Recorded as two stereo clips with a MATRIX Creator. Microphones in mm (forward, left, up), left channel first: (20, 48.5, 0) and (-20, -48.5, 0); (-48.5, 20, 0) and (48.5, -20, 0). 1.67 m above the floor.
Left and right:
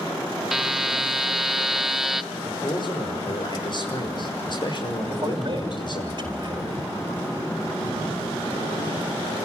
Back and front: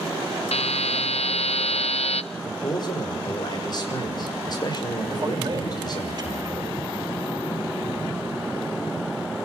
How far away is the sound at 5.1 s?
About 5 m.